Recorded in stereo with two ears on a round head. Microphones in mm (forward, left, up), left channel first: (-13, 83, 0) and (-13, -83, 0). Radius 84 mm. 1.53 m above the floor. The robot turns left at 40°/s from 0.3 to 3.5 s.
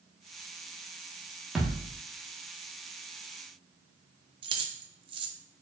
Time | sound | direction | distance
1.6 | a thud | centre (ahead or behind) | 1.0 m
4.4 | keys jangling | 25° right (ahead or behind) | 0.6 m